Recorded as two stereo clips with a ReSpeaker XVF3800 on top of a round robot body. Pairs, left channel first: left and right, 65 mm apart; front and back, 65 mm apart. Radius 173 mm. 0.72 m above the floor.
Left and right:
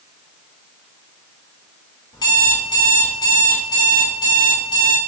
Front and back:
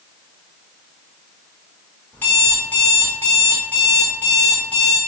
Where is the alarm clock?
65° left, 0.9 m.